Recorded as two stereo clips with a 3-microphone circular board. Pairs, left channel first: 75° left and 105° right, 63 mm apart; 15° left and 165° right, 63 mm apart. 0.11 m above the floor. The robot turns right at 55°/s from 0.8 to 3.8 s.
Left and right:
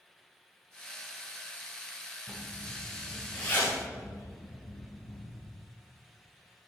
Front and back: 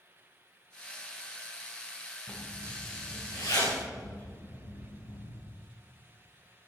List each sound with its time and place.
2.3 s a zipper: 55° right, 4.5 m; by 5.4 s 30° left, 4.5 m